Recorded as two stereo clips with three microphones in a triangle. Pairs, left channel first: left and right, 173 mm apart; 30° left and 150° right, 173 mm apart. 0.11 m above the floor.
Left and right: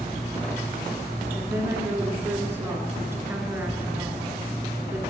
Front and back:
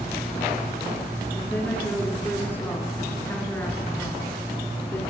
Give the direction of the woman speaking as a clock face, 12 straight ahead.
1 o'clock.